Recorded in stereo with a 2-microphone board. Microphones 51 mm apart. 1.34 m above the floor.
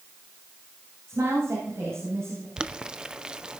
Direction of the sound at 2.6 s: 15° right (ahead or behind).